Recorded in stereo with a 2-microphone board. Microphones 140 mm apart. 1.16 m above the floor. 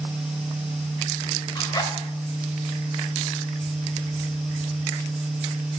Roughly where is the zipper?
Left.